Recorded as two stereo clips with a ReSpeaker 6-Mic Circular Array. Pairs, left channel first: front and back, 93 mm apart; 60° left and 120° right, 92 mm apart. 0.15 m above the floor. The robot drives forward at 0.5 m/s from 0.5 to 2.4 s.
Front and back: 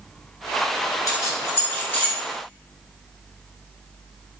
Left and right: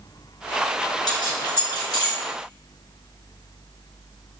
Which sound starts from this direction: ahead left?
Keys jangling, at 1.1 s.